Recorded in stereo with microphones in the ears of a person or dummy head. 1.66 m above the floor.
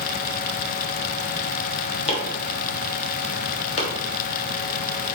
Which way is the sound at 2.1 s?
40° left (ahead or behind).